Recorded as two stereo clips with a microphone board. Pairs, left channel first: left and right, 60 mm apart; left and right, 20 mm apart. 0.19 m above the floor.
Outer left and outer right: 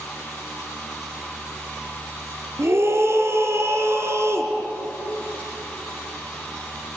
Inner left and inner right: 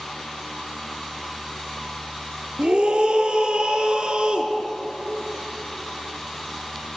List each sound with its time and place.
2.6 s a scream: 50° right (ahead or behind), 2.5 m